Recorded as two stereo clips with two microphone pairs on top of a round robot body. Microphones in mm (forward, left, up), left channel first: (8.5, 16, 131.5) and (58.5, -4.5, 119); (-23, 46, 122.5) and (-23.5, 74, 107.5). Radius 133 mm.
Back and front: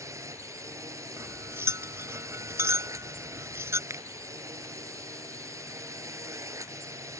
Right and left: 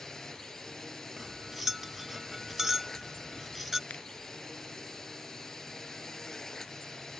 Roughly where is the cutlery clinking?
Ahead.